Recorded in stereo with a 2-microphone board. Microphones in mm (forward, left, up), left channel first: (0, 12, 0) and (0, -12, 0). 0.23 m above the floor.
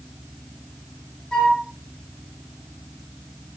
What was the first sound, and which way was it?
A flute, 35° left (ahead or behind).